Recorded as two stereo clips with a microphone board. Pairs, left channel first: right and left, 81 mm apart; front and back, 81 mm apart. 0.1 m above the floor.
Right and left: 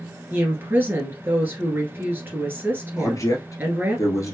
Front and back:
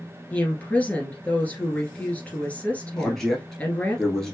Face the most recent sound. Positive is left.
turn(degrees=-85)